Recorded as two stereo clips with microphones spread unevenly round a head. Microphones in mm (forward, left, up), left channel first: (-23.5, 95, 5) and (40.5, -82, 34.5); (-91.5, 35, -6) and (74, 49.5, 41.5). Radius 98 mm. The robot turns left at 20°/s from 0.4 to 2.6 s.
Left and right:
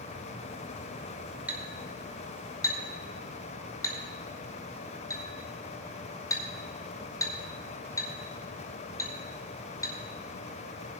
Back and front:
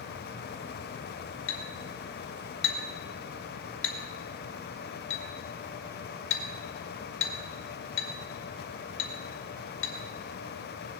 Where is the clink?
150° right, 2.0 m; by 9.9 s 175° right, 2.0 m.